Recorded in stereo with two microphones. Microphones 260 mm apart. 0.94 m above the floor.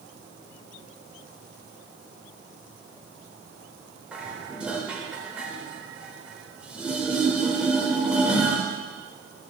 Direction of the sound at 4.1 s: 5° right (ahead or behind).